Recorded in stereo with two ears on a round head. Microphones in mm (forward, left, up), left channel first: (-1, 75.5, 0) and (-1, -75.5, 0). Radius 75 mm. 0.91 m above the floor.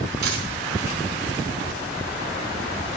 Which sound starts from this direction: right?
A dropped coin, at 0.2 s.